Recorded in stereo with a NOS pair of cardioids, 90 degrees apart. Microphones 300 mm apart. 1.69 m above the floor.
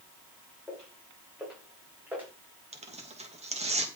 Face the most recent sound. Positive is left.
turn(degrees=-20)